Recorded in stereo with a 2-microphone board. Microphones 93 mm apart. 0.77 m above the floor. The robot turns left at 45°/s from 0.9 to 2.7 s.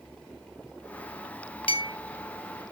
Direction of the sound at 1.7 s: 70° left (ahead or behind).